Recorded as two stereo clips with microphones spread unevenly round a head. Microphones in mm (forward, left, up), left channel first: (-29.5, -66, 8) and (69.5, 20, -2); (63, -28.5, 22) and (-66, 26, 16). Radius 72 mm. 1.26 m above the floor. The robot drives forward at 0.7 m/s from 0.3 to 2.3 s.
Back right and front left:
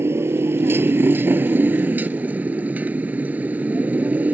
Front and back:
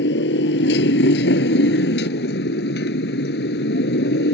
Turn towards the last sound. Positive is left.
turn(degrees=-40)